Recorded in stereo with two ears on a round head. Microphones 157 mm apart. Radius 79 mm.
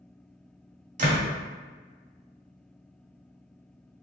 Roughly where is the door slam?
Right.